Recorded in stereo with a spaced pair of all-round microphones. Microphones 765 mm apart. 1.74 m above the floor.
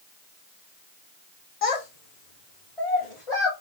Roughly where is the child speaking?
Left.